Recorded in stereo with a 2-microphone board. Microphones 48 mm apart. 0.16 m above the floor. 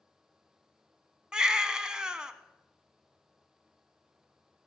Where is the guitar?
No guitar in this recording.